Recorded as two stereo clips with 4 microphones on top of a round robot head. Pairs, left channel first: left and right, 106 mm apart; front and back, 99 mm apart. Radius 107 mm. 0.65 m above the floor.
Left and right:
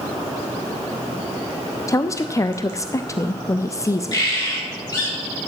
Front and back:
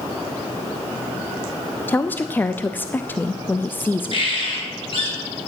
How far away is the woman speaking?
About 0.7 m.